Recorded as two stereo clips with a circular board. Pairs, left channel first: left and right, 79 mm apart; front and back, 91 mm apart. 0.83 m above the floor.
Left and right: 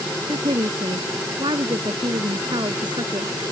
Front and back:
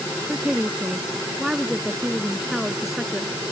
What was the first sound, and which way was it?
A woman speaking, 105° right.